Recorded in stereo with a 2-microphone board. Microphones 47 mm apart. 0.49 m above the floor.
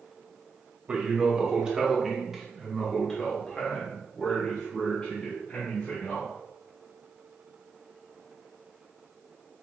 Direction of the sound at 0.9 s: 25° right (ahead or behind).